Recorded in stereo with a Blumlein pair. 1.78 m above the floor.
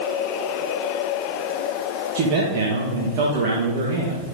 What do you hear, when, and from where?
2.1 s a man speaking: 40° right, 2.0 m